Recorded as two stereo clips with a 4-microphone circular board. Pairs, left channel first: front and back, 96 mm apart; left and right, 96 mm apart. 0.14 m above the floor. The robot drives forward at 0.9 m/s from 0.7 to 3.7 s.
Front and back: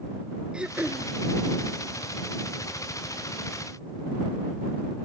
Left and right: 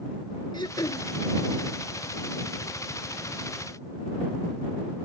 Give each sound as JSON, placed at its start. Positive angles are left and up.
{"t": 0.5, "sound": "throat clearing", "azimuth_deg": 105}